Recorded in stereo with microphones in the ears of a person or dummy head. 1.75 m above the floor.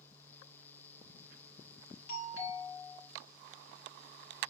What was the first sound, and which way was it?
A doorbell, 70° left (ahead or behind).